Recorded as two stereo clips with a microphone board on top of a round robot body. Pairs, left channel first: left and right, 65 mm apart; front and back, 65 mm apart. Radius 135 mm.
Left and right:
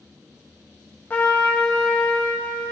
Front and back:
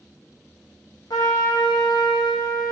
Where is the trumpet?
25° left, 0.9 m.